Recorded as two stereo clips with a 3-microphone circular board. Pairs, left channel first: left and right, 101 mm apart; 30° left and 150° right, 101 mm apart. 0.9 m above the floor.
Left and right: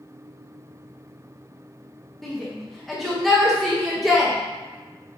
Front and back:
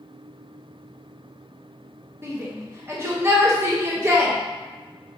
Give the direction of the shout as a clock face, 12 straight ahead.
6 o'clock.